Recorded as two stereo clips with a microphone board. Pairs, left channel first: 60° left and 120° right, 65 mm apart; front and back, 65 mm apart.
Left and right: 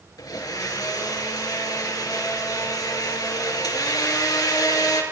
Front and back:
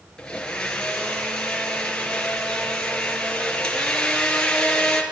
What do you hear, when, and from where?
0.2 s a blender: 80° left, 5.5 m